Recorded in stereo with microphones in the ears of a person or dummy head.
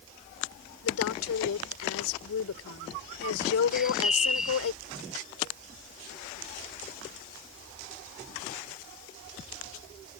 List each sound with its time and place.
0.8 s a woman speaking: 85° left
3.7 s a bird: centre (ahead or behind)